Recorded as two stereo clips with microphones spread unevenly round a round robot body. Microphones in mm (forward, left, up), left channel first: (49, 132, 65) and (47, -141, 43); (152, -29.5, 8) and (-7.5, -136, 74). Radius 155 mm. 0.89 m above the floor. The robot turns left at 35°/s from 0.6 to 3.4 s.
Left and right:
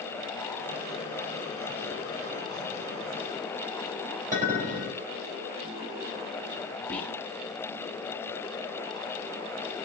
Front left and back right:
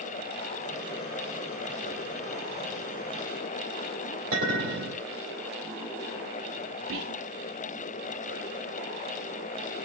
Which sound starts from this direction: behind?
Whispering, at 6.9 s.